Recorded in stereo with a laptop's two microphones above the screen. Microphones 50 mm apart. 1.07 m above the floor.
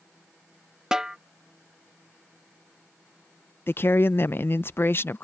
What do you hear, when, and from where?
0.9 s a snare drum: 10° right (ahead or behind)
3.7 s a woman speaking: 45° left (ahead or behind)